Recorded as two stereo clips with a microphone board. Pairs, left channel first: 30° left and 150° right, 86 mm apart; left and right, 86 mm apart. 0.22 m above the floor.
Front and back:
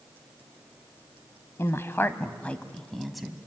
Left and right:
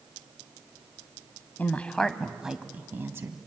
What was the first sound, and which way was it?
A woman speaking, 40° left.